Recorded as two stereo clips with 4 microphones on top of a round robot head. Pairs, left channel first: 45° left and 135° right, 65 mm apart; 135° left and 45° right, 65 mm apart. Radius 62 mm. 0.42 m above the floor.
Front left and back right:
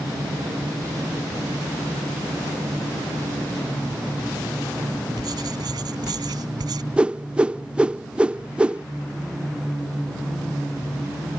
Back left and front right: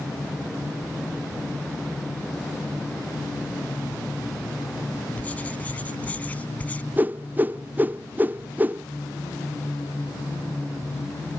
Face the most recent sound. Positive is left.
turn(degrees=-75)